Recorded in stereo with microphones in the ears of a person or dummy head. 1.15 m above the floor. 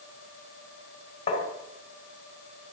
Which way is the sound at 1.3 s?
35° left (ahead or behind).